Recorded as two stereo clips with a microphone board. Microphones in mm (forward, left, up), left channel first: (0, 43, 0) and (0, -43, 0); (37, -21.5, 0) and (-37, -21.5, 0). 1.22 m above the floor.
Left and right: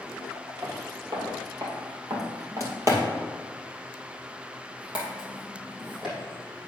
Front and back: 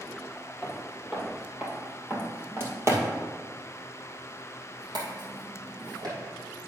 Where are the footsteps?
95° right, 2 m; by 6.2 s 175° right, 3 m.